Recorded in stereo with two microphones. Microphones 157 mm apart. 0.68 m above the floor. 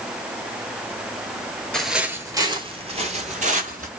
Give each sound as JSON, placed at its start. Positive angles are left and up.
{"t": 1.7, "sound": "footsteps", "side_deg": 5, "distance_m": 0.8}